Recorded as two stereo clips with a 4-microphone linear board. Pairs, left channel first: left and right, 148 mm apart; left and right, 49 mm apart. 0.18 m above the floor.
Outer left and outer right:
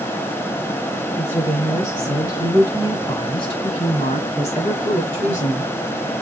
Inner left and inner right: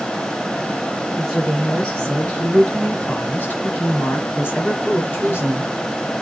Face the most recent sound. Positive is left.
turn(degrees=50)  # may be behind; listen again after turning